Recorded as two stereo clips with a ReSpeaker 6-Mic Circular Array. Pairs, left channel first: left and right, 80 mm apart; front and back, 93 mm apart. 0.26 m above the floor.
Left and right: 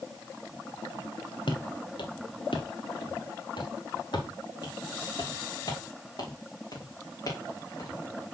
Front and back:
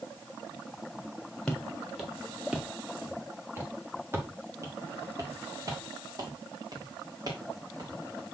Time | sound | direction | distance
1.5 | footsteps | 85° left | 2.5 m